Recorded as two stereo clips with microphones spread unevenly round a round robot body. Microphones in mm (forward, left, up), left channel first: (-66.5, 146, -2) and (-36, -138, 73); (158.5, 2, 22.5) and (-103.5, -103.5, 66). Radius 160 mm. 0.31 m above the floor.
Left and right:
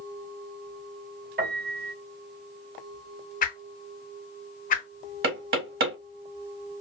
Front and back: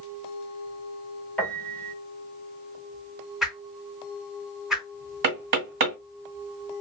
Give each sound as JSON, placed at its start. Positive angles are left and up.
{"t": 1.4, "sound": "a piano", "azimuth_deg": -40, "distance_m": 1.0}
{"t": 3.4, "sound": "a whoosh", "azimuth_deg": 105, "distance_m": 0.6}
{"t": 5.2, "sound": "knocking", "azimuth_deg": -135, "distance_m": 1.9}